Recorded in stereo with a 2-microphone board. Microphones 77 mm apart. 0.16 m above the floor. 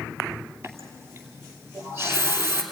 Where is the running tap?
35° right (ahead or behind), 2.5 m.